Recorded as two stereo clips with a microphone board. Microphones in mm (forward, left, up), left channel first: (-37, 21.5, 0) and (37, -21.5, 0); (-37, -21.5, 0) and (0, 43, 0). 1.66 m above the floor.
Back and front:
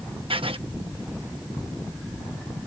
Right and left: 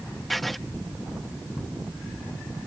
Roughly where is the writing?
Ahead right.